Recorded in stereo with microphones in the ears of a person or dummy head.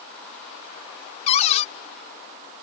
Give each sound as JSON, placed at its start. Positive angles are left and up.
{"t": 1.3, "sound": "a cupboard door", "side_deg": 40}